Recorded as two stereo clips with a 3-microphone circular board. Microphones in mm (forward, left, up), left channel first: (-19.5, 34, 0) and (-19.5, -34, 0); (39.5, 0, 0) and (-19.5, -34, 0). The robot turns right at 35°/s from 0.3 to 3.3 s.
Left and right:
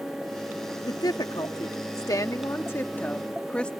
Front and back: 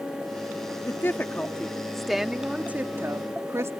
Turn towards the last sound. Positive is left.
turn(degrees=165)